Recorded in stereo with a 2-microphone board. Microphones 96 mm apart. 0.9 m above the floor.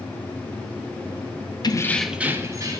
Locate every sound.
1.6 s keys jangling: 45° left (ahead or behind), 0.6 m; by 2.8 s 40° right (ahead or behind), 1.1 m